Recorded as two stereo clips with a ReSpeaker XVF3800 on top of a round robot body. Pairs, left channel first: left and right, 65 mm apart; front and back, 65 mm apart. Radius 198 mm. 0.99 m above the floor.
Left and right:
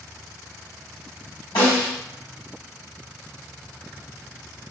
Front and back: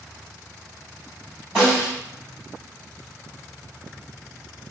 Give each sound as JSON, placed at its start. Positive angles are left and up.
{"t": 1.6, "sound": "a snare drum", "azimuth_deg": 105, "distance_m": 1.2}